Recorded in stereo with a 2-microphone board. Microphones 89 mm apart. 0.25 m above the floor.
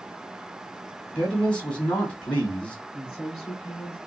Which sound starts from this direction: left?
A woman speaking, at 2.9 s.